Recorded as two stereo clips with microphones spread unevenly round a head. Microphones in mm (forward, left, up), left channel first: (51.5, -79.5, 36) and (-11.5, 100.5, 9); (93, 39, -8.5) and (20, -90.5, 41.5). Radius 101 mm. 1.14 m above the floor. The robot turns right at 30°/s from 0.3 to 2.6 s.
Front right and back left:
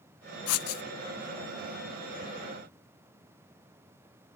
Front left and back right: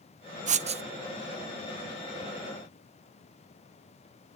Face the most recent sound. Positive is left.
turn(degrees=-10)